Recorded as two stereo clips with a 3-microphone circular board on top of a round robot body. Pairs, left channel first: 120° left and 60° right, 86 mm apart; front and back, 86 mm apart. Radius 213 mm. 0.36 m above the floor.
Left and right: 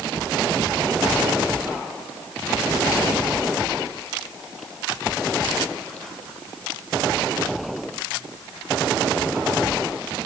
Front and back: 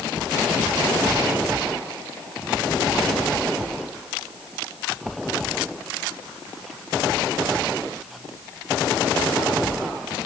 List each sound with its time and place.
Only background noise.